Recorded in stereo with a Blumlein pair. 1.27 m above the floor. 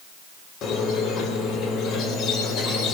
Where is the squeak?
30° left, 3 m.